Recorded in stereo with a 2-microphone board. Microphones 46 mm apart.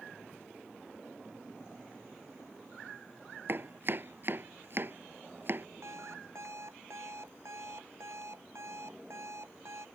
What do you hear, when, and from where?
3.5 s chopping: 50° right (ahead or behind)
5.8 s an alarm clock: 75° right (ahead or behind)